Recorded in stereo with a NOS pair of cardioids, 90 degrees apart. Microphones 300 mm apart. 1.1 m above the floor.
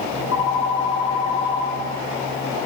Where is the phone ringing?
65° left, 2.5 m.